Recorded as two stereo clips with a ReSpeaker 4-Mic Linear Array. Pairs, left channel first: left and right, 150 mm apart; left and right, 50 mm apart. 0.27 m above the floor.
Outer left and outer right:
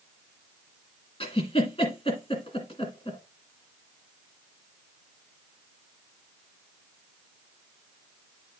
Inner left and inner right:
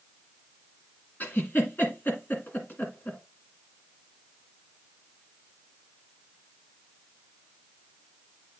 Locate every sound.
1.2 s a giggle: 40° left (ahead or behind), 1.8 m